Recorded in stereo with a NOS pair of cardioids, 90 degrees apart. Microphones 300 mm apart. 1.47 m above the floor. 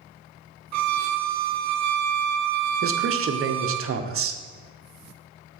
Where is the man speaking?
45° right, 0.8 m.